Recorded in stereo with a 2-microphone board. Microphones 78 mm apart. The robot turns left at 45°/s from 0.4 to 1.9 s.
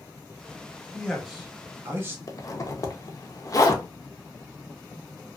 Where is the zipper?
45° left (ahead or behind), 0.6 m.